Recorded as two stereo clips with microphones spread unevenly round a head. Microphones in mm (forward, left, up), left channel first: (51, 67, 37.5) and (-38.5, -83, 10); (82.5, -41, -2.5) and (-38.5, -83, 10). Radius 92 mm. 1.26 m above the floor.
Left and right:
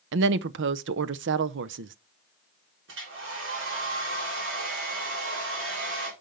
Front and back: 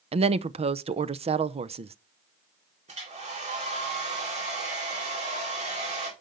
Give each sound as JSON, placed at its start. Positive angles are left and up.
{"t": 0.1, "sound": "a woman speaking", "azimuth_deg": -115, "distance_m": 0.6}
{"t": 2.9, "sound": "a hair dryer", "azimuth_deg": -130, "distance_m": 3.5}